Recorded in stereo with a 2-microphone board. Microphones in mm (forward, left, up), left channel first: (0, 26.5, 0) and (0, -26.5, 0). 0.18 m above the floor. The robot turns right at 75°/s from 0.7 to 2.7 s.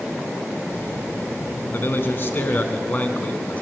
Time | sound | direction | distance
1.7 | a man speaking | 60° left | 1.5 m